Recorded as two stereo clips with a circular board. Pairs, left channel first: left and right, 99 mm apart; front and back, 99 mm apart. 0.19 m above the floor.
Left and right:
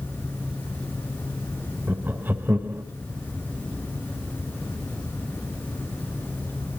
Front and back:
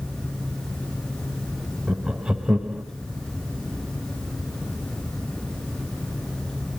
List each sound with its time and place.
1.9 s laughter: 110° right, 1.2 m